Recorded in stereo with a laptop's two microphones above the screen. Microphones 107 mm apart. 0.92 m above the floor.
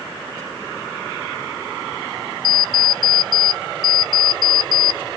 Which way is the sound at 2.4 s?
40° right (ahead or behind).